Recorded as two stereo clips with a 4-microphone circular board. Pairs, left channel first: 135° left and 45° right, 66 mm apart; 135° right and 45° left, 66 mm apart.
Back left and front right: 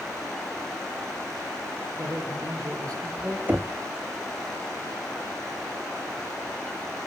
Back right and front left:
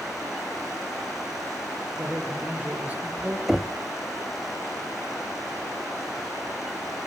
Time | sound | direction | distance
2.0 | a man speaking | 25° right | 6 m
3.5 | knocking | 40° right | 0.6 m